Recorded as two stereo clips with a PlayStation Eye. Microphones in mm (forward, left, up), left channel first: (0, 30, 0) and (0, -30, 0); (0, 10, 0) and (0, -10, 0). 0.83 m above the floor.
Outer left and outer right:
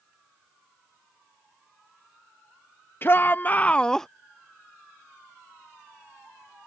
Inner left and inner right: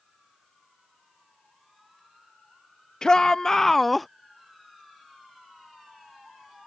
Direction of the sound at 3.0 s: 40° left (ahead or behind).